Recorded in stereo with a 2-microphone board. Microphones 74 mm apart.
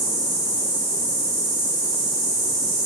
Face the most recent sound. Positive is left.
turn(degrees=35)  # may be behind; listen again after turning